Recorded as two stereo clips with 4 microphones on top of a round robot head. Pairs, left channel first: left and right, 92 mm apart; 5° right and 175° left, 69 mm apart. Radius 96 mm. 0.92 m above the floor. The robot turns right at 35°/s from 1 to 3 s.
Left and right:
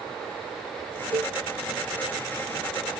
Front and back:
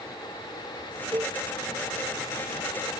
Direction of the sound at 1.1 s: 130° right.